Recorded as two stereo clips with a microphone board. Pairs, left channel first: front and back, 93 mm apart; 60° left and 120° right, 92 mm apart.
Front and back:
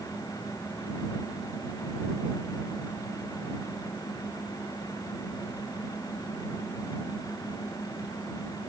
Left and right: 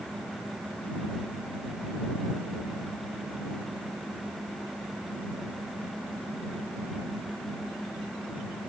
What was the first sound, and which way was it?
Only background noise.